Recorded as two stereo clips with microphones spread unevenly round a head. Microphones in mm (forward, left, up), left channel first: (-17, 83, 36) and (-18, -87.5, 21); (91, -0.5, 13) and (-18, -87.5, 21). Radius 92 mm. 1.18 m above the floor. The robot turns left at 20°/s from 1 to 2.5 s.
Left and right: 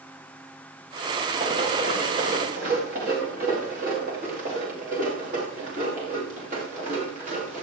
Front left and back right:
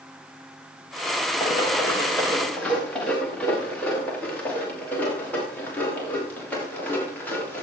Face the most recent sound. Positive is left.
turn(degrees=-40)